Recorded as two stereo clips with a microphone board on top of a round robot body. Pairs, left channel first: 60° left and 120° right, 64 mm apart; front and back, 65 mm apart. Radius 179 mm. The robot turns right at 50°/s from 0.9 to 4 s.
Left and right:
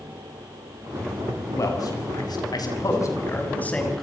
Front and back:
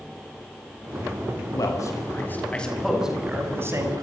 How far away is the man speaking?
About 6.5 m.